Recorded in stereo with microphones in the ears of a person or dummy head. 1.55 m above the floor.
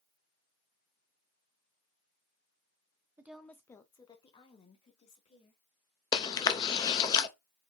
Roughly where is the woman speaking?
Centre.